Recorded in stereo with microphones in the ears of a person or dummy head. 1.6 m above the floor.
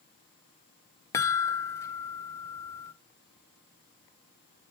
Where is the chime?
15° left (ahead or behind), 0.6 m.